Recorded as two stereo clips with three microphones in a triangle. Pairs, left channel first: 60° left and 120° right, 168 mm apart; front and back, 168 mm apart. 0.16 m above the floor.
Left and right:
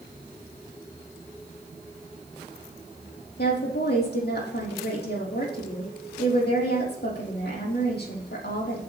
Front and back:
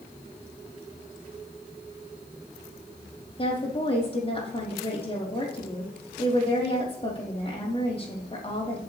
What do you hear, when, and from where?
3.4 s a woman speaking: 55° left, 5 m